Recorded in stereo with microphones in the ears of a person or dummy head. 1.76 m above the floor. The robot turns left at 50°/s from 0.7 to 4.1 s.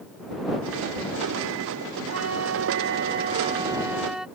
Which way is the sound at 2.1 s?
80° right.